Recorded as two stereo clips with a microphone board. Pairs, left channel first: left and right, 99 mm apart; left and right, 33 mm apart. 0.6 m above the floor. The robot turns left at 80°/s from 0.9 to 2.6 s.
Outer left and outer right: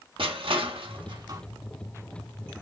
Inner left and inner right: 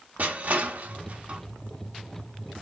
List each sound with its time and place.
0.2 s crushing: 60° right (ahead or behind), 0.8 m; by 1.4 s 30° right (ahead or behind), 0.8 m